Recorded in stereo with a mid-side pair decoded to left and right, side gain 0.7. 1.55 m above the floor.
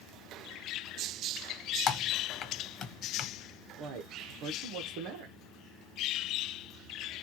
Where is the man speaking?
65° right, 0.9 m.